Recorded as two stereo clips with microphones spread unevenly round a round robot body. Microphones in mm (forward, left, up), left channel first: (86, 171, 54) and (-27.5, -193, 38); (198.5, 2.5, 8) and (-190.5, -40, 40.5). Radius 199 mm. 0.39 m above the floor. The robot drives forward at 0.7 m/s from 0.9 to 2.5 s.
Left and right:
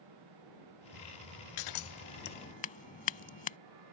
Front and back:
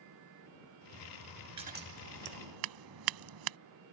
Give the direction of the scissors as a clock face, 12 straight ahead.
8 o'clock.